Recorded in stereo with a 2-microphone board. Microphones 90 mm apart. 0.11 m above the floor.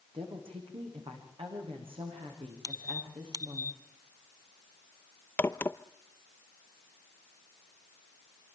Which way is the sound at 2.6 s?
50° right (ahead or behind).